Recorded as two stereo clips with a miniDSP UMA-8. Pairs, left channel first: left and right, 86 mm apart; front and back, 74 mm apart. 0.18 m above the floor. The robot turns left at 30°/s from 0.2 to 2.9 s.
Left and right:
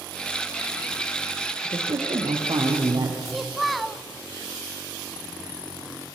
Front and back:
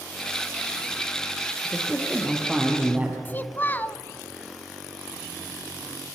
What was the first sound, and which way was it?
A man speaking, 75° right.